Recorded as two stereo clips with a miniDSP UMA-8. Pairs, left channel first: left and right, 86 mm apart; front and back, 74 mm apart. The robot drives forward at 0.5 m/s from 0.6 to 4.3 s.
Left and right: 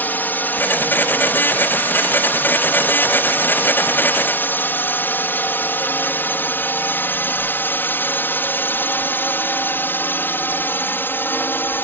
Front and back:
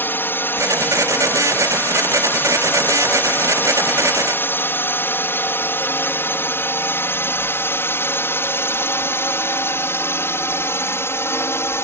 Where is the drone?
35° left.